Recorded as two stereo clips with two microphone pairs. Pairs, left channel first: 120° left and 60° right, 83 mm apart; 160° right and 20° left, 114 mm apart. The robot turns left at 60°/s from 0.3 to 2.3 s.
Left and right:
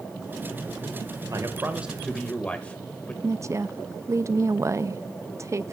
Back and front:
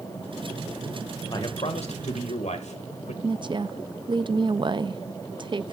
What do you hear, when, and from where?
1.3 s a man speaking: 105° right, 2 m; by 3.1 s 165° right, 2 m
3.2 s a woman speaking: 20° right, 0.5 m